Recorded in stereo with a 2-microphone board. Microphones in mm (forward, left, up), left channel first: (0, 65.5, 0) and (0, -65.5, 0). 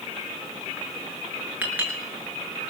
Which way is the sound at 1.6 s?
10° right (ahead or behind).